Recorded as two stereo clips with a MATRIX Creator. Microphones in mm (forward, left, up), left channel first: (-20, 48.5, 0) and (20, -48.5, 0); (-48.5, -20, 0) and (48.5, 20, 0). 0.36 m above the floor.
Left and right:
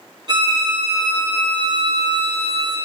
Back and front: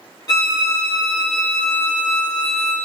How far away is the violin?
About 0.8 m.